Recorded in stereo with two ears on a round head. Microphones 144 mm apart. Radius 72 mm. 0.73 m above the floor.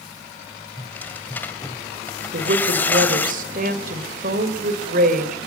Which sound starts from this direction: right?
A woman speaking, at 2.3 s.